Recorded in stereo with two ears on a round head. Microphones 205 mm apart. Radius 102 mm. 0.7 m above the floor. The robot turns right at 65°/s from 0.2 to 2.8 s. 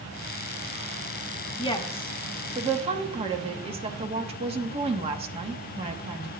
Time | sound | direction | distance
1.6 | a woman speaking | 140° left | 0.9 m